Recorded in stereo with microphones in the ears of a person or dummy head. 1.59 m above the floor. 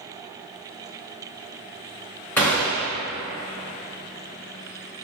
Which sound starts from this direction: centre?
A gunshot, at 2.4 s.